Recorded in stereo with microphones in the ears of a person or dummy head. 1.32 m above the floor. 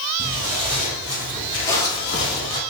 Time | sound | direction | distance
0.2 | footsteps | 20° right (ahead or behind) | 1.4 m